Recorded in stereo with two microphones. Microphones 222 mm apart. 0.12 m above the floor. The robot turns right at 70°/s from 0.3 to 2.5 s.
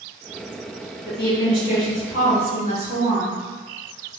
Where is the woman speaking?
25° left, 2.0 m; by 3.4 s 130° left, 2.0 m.